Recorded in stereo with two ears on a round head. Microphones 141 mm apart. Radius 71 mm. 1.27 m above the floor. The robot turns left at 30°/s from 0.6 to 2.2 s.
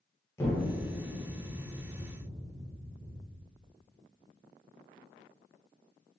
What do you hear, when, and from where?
0.4 s an explosion: 15° left (ahead or behind), 0.7 m; by 3.4 s 30° right (ahead or behind), 0.7 m